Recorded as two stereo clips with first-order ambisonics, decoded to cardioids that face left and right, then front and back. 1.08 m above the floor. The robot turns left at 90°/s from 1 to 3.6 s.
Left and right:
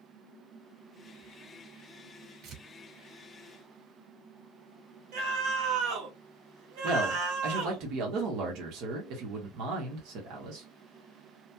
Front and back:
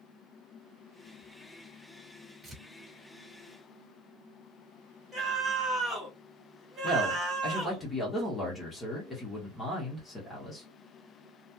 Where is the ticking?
No ticking in this recording.